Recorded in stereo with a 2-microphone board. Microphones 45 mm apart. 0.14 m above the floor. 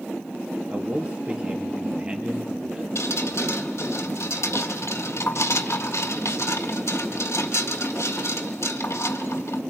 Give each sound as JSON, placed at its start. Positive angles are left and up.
{"t": 0.7, "sound": "a man speaking", "side_deg": -25, "distance_m": 3.5}
{"t": 3.0, "sound": "dripping", "side_deg": 75, "distance_m": 1.7}